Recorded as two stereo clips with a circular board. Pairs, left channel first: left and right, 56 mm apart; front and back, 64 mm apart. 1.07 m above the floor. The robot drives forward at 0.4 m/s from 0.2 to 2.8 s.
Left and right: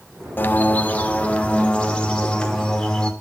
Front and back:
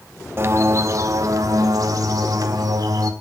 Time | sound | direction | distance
0.4 | a bird | 135° left | 0.6 m